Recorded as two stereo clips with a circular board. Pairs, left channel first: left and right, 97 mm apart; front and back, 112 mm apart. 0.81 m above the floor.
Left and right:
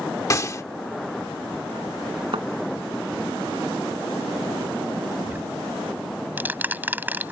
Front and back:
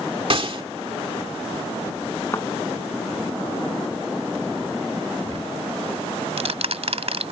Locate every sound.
0.3 s a gunshot: 145° left
2.3 s a thud: 65° right
5.3 s ticking: 160° right